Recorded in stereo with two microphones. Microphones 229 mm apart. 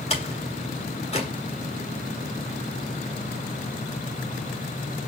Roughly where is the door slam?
Left.